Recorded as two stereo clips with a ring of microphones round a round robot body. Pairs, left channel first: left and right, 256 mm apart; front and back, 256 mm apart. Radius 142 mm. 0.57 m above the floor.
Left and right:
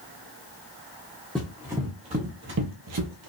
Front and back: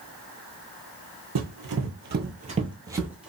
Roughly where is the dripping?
I don't hear dripping.